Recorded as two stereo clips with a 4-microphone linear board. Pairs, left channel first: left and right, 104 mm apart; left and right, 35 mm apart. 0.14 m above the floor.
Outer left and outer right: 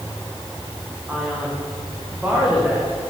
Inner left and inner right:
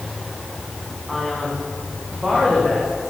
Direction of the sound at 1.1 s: 15° right (ahead or behind).